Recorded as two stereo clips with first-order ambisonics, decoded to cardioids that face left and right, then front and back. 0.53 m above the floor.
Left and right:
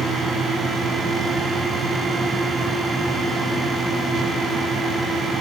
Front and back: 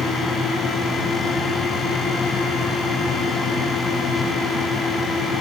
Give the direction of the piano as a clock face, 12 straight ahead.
I don't hear a piano.